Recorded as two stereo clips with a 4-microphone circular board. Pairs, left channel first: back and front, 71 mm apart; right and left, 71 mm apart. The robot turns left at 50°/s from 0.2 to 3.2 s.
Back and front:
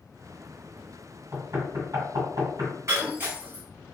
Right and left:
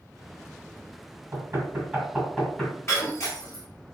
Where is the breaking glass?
40° right, 1.2 m; by 3.6 s 60° right, 1.2 m.